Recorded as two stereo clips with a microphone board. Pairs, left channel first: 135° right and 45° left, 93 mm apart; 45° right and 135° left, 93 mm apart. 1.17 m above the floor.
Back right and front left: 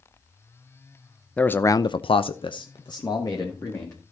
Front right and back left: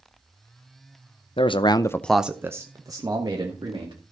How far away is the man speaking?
About 0.8 m.